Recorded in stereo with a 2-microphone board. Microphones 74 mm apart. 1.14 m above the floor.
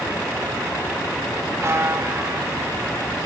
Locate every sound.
1.6 s a buzzer: 35° right (ahead or behind), 2 m